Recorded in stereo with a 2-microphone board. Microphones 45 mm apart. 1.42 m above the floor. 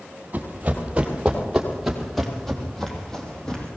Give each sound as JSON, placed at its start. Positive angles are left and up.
{"t": 0.3, "sound": "running footsteps", "side_deg": -35, "distance_m": 3.0}